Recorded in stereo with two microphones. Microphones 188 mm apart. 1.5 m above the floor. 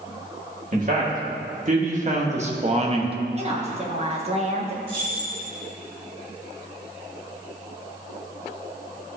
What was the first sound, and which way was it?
A man speaking, 45° right (ahead or behind).